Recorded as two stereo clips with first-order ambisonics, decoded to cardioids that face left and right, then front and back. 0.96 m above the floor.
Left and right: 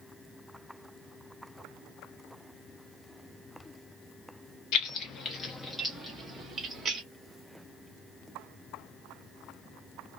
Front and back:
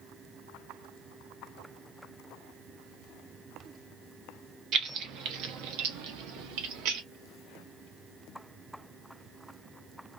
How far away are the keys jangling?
About 0.7 m.